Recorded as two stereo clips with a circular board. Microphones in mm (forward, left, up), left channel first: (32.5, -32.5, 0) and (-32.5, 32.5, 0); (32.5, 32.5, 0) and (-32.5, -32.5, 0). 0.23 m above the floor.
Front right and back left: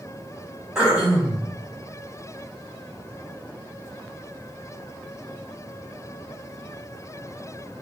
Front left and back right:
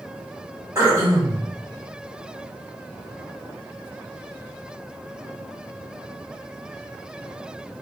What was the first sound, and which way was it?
Throat clearing, 150° right.